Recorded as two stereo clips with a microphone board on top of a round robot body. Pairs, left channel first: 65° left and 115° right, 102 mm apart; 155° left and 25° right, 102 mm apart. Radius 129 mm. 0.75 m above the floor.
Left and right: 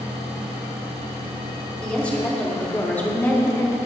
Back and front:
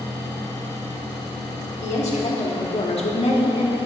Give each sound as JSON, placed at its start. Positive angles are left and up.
{"t": 1.8, "sound": "a woman speaking", "azimuth_deg": 145, "distance_m": 3.0}